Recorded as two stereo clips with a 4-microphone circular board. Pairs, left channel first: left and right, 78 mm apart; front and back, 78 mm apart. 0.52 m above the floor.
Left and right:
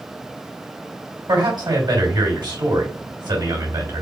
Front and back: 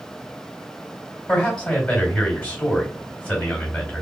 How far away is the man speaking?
About 2.5 m.